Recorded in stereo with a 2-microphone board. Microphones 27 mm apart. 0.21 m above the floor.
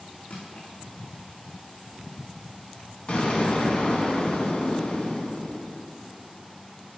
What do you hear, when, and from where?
0.3 s crushing: 75° left (ahead or behind), 4 m
3.1 s an explosion: 50° left (ahead or behind), 1.9 m